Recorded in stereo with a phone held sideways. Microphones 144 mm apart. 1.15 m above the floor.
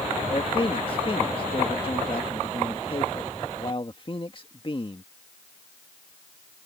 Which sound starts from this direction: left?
A man speaking, at 0.3 s.